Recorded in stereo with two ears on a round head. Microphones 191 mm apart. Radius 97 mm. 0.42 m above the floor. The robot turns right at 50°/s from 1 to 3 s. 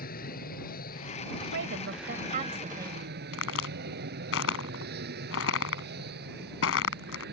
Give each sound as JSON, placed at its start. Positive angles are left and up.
{"t": 0.0, "sound": "an aircraft", "azimuth_deg": 135}
{"t": 1.5, "sound": "a woman speaking", "azimuth_deg": -85}
{"t": 3.3, "sound": "a crack", "side_deg": 75}